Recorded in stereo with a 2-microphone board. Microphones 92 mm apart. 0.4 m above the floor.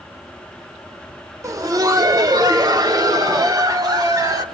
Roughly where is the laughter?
Right.